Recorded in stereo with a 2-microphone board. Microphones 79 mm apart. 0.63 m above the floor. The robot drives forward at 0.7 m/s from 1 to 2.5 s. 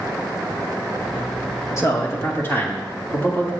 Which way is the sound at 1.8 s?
35° left (ahead or behind).